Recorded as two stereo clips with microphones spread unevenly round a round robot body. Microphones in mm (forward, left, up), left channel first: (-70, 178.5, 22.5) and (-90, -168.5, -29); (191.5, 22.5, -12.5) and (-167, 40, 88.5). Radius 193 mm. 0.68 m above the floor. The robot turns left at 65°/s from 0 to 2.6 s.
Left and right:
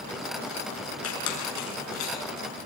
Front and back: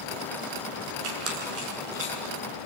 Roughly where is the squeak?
Behind left.